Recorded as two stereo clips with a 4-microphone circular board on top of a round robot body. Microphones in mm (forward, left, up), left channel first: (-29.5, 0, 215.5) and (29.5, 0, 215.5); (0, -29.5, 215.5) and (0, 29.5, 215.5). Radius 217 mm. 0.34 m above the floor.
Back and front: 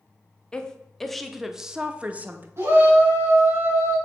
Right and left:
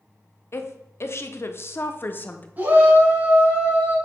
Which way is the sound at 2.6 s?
40° left.